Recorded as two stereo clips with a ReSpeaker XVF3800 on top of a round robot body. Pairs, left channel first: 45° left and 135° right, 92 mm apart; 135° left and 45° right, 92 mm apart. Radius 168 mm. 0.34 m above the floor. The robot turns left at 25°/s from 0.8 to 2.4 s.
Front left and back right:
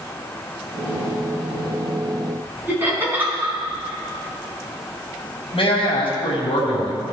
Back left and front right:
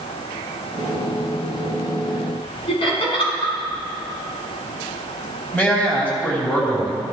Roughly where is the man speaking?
Ahead left.